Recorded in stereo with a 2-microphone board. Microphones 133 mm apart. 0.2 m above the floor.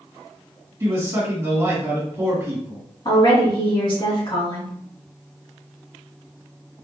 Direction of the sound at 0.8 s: 25° right (ahead or behind).